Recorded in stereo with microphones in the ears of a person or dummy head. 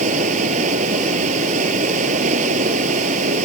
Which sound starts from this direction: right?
Running water, at 0.0 s.